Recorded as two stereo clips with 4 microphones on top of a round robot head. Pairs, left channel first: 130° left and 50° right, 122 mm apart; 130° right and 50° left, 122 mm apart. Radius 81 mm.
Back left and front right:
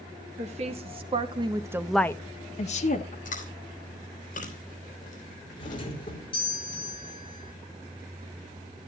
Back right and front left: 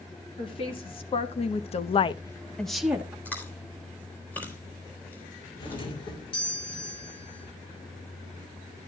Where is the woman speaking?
80° right, 2.5 m; by 3.1 s 130° left, 1.6 m.